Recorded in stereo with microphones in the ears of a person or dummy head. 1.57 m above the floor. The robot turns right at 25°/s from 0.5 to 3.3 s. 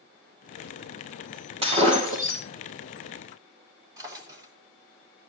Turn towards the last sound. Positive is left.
turn(degrees=-20)  # may be behind; listen again after turning